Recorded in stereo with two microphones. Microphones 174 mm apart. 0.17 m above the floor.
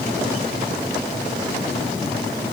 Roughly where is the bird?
No bird in this recording.